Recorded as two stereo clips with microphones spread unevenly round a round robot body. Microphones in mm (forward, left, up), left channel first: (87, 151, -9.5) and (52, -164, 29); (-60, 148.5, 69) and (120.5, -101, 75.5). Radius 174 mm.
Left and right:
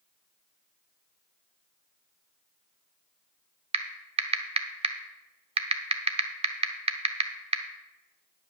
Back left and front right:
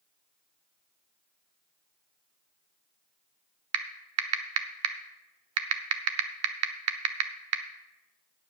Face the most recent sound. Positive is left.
turn(degrees=-20)